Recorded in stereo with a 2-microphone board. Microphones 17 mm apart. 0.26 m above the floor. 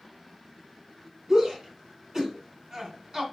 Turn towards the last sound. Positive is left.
turn(degrees=-40)  # may be behind; listen again after turning